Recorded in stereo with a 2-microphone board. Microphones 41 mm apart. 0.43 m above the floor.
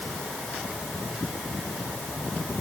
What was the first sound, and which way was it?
Only background noise.